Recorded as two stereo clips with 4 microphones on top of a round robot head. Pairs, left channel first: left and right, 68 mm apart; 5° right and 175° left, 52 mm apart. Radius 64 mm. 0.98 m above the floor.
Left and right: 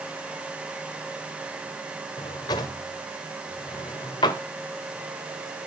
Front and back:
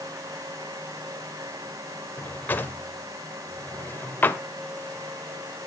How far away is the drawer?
About 1.7 m.